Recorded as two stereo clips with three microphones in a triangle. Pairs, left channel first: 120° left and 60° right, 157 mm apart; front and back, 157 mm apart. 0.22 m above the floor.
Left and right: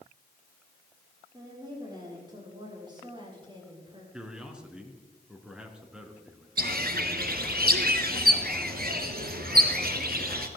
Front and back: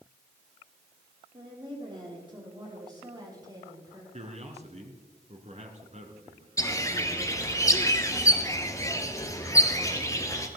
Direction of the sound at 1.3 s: 125° right.